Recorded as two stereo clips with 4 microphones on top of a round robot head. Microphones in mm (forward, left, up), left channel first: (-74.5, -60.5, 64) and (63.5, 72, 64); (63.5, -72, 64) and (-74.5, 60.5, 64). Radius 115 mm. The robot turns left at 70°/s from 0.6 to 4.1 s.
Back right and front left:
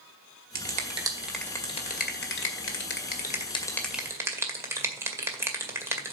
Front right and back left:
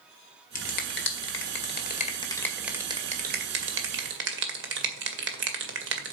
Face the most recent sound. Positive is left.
turn(degrees=120)